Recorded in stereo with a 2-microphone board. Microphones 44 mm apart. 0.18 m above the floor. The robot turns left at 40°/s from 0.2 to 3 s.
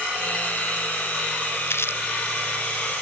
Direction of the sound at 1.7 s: 80° left.